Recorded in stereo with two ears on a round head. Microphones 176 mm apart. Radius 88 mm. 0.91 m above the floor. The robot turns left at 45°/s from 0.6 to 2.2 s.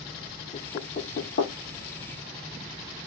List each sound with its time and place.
0.5 s knocking: 30° left (ahead or behind), 0.6 m; by 1.5 s 60° left (ahead or behind), 0.6 m